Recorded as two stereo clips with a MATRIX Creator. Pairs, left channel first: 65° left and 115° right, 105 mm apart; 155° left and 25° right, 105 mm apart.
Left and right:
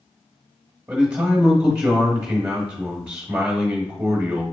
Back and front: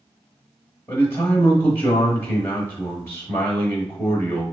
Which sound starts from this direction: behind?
A man speaking, at 0.9 s.